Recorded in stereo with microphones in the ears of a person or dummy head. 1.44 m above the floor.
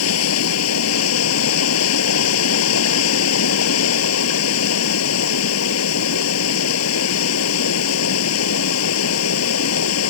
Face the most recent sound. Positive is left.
turn(degrees=85)